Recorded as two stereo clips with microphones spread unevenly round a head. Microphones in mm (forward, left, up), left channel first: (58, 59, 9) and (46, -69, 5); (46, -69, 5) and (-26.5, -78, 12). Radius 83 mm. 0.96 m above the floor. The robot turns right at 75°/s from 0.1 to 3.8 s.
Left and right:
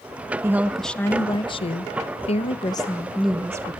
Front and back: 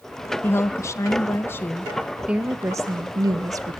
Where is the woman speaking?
35° right, 0.9 m; by 3.8 s 140° right, 0.9 m.